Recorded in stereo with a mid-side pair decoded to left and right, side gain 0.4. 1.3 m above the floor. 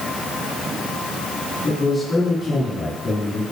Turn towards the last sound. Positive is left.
turn(degrees=40)